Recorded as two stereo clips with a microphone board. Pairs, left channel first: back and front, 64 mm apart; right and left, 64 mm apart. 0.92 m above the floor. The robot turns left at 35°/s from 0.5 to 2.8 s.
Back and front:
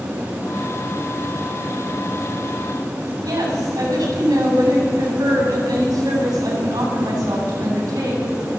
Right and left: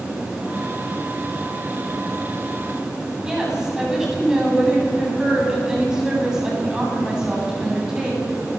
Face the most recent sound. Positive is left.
turn(degrees=10)